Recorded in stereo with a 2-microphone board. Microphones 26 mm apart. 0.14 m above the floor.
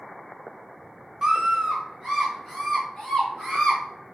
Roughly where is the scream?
Right.